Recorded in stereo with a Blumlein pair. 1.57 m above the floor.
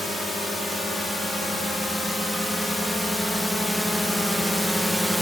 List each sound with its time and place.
0.0 s a drone: 5° left; by 5.2 s straight ahead